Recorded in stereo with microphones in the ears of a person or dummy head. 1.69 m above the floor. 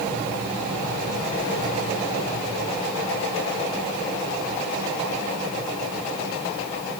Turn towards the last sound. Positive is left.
No sound to turn to.